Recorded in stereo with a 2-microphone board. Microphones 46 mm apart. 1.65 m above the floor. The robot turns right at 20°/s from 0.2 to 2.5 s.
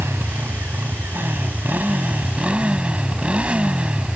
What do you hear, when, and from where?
0.0 s a motorcycle: 75° right; by 4.2 s 25° right